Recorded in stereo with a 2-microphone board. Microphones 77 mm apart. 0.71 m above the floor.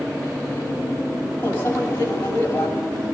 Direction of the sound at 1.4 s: 30° left (ahead or behind).